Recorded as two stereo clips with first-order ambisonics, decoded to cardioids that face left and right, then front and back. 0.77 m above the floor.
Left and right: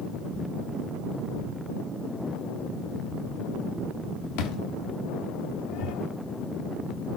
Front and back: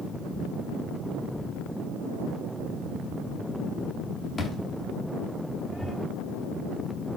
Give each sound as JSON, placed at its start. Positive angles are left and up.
{"t": 1.4, "sound": "a thud", "azimuth_deg": 75, "distance_m": 0.7}